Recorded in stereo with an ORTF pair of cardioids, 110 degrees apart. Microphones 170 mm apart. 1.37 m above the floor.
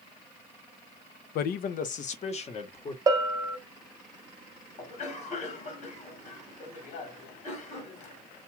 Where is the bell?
25° right, 0.6 m.